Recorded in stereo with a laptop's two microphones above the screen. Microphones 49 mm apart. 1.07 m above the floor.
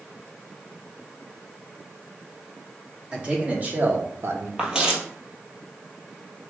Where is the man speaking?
20° right (ahead or behind), 2.5 m; by 4.5 s 65° right (ahead or behind), 0.9 m.